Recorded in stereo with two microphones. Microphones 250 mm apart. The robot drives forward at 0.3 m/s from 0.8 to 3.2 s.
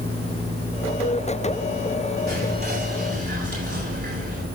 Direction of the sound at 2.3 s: 50° right (ahead or behind).